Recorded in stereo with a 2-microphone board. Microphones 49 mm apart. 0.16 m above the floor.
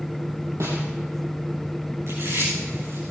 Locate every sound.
0.6 s a snare drum: 70° right (ahead or behind), 4.5 m
2.1 s chewing: 75° right (ahead or behind), 8 m